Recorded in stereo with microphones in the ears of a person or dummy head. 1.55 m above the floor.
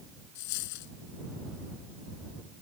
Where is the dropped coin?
60° left (ahead or behind).